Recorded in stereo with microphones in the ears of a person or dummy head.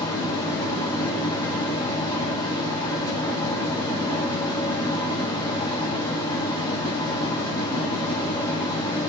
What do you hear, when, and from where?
0.0 s a fan: 15° left (ahead or behind), 0.9 m